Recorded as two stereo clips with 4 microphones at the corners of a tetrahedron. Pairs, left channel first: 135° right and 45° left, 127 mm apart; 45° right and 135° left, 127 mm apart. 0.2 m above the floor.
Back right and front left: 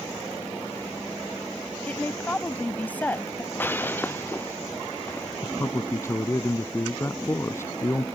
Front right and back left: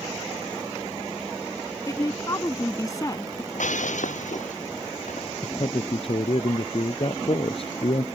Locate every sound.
1.9 s a woman speaking: 70° right
3.5 s breaking glass: 60° right
5.4 s a man speaking: 70° right